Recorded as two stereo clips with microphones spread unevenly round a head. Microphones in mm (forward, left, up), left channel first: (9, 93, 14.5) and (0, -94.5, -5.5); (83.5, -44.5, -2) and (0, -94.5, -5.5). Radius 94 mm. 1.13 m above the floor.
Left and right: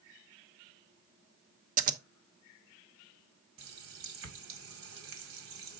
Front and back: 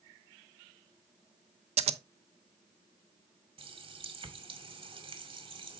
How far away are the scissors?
About 0.8 m.